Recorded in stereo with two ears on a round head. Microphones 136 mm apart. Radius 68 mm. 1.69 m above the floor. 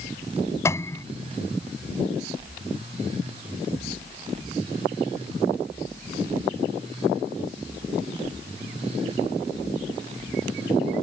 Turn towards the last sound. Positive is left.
turn(degrees=20)  # may be behind; listen again after turning